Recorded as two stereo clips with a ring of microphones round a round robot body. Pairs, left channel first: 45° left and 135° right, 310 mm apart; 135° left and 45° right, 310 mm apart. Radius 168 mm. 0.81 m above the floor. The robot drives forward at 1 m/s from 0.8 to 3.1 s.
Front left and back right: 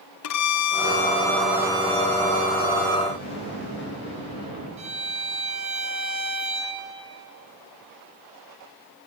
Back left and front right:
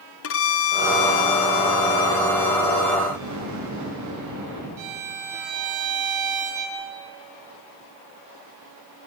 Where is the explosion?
10° right, 9.5 m.